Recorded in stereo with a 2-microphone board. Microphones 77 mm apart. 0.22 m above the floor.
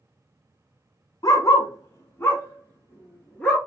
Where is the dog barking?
60° left (ahead or behind), 0.8 m; by 3.6 s 15° left (ahead or behind), 1.6 m.